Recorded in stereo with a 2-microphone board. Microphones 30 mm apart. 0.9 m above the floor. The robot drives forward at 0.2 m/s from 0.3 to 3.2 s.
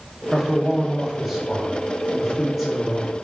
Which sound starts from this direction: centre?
A man speaking, at 0.3 s.